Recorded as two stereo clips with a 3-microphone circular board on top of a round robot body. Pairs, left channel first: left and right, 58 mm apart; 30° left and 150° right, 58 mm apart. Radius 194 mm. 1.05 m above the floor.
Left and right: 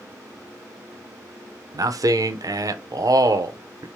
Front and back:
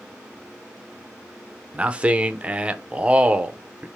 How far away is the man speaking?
About 0.6 m.